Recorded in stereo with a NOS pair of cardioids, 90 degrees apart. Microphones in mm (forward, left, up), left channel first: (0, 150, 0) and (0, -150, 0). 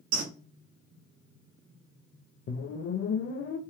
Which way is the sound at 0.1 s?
65° right.